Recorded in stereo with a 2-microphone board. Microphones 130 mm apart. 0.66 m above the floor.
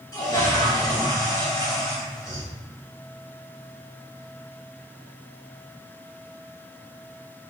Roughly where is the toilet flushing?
Left.